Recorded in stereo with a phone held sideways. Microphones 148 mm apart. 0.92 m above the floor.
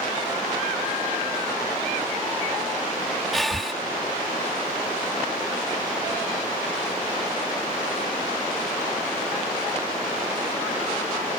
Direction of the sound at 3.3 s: Centre (ahead or behind).